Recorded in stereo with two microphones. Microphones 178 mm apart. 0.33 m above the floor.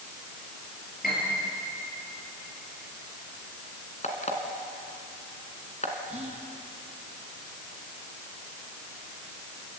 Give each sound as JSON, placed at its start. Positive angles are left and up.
{"t": 1.0, "sound": "a piano", "side_deg": 55, "distance_m": 7.0}
{"t": 4.0, "sound": "an alarm clock", "side_deg": 40, "distance_m": 2.0}
{"t": 6.1, "sound": "whispering", "side_deg": -40, "distance_m": 1.9}